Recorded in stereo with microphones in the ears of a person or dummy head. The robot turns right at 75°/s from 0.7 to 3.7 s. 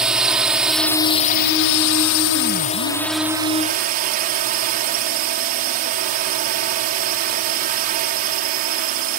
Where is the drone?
Straight ahead; by 9.2 s 135° right.